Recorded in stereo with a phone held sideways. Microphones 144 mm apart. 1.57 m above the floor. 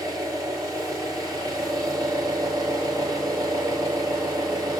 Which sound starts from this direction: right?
An engine running, at 0.0 s.